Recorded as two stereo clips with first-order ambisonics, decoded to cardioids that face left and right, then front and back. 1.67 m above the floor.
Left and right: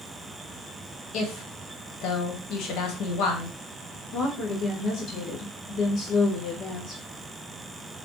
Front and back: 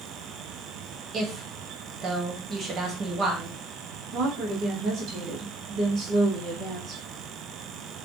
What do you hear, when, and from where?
1.1 s a woman speaking: 120° left, 1.1 m
4.1 s a woman speaking: 135° left, 1.5 m